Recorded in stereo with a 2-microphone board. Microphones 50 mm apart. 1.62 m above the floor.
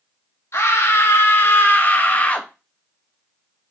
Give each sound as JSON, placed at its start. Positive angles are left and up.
{"t": 0.5, "sound": "a scream", "side_deg": 60, "distance_m": 1.8}